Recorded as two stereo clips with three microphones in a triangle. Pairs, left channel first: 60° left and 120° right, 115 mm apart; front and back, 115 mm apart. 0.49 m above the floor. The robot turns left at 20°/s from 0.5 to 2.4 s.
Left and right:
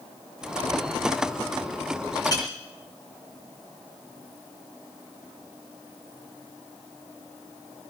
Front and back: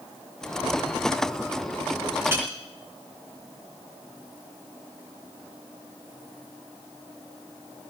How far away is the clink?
About 3.5 m.